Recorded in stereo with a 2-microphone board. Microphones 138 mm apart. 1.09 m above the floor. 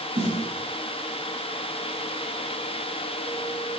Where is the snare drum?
40° right (ahead or behind), 6 m.